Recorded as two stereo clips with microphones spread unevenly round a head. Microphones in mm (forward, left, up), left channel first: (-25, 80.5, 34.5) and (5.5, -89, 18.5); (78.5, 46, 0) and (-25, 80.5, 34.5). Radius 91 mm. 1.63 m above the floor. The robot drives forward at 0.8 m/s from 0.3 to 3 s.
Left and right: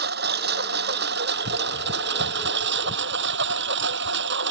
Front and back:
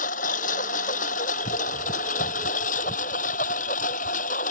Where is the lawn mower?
40° right; by 4.5 s 50° right.